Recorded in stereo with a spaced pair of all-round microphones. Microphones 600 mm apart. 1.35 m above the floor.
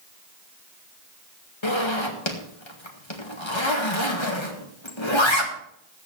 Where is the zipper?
50° left (ahead or behind), 2 m.